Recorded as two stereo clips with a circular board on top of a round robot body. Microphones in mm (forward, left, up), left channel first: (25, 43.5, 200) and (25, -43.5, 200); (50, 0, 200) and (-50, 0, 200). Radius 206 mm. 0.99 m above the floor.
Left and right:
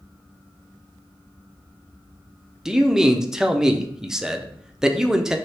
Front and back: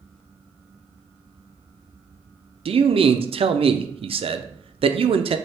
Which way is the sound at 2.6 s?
175° right.